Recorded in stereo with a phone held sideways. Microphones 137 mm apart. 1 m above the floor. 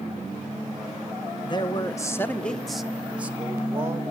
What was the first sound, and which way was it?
A man speaking, 35° left (ahead or behind).